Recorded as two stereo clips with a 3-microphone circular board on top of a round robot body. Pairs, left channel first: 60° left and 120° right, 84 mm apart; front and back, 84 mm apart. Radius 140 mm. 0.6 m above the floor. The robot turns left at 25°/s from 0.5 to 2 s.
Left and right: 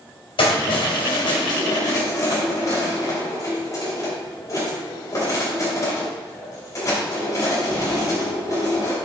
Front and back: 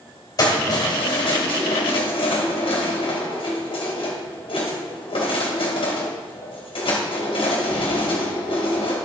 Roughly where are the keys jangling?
Ahead left.